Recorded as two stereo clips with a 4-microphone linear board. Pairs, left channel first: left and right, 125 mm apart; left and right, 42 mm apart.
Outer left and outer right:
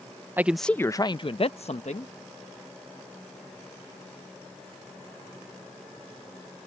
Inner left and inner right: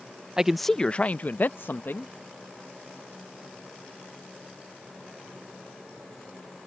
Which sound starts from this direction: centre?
A man speaking, at 0.4 s.